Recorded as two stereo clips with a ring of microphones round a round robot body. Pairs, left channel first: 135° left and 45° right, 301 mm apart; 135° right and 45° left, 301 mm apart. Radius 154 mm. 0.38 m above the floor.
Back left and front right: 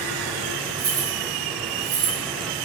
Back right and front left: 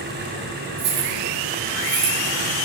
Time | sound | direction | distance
0.8 | keys jangling | 5° left | 5.5 m